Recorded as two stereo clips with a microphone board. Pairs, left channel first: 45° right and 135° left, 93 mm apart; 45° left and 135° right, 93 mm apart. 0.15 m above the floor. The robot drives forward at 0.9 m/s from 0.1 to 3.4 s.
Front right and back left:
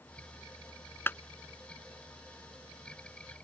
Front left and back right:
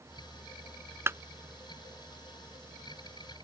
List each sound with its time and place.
1.1 s a clap: 90° right; by 1.2 s 100° right